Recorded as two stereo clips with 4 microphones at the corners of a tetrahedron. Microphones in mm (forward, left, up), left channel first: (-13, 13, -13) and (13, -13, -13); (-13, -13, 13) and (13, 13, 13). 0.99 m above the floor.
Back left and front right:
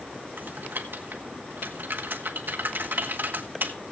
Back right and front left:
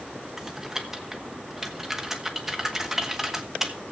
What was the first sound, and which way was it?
Typing on a keyboard, 35° right.